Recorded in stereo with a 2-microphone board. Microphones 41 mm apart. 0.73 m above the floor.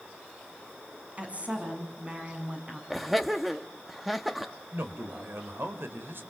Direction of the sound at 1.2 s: 35° right (ahead or behind).